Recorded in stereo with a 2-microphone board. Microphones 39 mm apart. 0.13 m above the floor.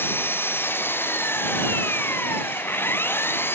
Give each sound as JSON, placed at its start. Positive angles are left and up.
{"t": 0.0, "sound": "an engine running", "side_deg": 70}